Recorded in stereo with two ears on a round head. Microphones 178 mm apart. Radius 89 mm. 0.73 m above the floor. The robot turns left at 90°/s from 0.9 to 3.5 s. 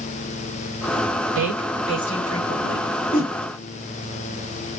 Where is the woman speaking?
50° right (ahead or behind), 4 m; by 2.9 s 80° left, 4 m.